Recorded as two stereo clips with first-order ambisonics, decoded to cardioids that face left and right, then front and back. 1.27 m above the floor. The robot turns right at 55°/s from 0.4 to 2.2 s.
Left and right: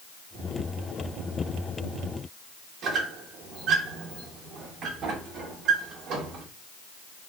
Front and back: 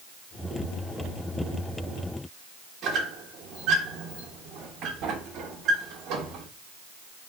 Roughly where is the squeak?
Behind right.